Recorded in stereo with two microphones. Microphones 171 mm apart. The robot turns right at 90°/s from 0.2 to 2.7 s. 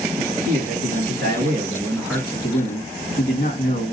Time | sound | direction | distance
0.2 | a man speaking | 175° right | 2 m